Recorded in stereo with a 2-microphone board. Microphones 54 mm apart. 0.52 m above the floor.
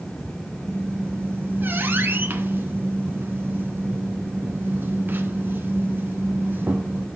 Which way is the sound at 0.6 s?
35° right (ahead or behind).